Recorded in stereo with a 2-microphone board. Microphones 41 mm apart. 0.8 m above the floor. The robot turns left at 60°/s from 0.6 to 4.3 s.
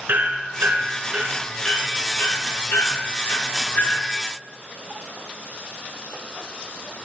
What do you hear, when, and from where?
0.1 s hammering: 55° right (ahead or behind), 4.5 m; by 4.1 s 25° left (ahead or behind), 4.5 m